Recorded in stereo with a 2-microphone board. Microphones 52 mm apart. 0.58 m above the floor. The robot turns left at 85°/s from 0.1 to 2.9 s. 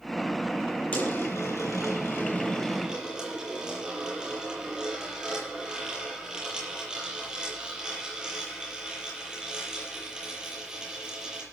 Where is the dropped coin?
150° left, 7.5 m; by 11.4 s 20° right, 7.5 m.